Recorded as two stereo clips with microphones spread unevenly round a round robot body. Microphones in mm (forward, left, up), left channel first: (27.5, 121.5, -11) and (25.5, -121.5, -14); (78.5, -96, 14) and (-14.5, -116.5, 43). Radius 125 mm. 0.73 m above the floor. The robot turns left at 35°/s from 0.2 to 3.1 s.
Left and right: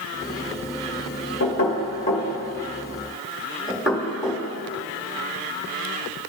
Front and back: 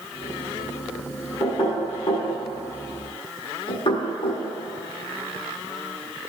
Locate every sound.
1.4 s knocking: 55° left, 1.8 m; by 6.3 s 5° right, 1.8 m